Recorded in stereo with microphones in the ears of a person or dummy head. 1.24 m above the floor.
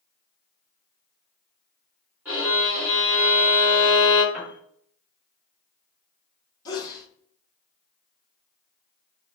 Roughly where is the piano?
Centre.